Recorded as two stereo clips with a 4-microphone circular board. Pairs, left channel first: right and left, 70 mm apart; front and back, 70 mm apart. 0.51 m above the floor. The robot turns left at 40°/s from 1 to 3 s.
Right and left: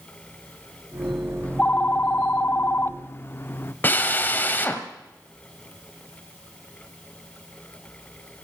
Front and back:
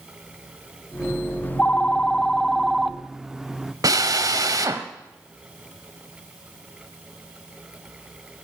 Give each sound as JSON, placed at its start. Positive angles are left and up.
{"t": 1.4, "sound": "a phone ringing", "azimuth_deg": -40, "distance_m": 0.5}
{"t": 3.8, "sound": "a drill", "azimuth_deg": -150, "distance_m": 1.5}